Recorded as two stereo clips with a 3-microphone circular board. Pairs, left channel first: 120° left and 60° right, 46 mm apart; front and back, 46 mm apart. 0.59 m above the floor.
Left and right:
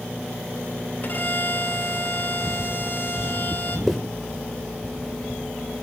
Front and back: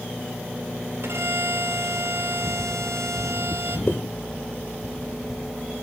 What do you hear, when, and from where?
1.0 s a violin: 165° left, 3 m
3.9 s a zipper: 30° left, 1.9 m